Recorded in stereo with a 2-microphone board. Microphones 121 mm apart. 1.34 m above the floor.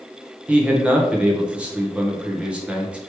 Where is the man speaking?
10° right (ahead or behind), 1.1 m.